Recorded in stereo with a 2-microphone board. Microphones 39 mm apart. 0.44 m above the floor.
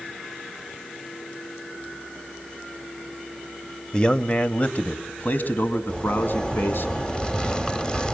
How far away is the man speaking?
About 1.5 m.